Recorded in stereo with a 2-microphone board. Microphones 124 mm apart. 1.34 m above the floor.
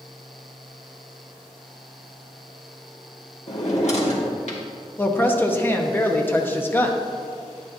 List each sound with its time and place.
3.5 s a drawer: 60° left (ahead or behind), 1.4 m
5.0 s a woman speaking: 15° left (ahead or behind), 0.8 m